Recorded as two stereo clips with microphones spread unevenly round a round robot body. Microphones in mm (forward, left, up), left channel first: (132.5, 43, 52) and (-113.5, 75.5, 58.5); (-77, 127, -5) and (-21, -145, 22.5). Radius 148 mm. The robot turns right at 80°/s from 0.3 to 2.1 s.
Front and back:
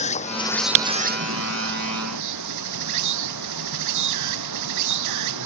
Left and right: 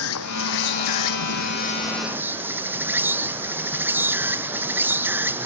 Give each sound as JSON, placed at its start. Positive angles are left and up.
{"t": 0.0, "sound": "an insect", "azimuth_deg": 55}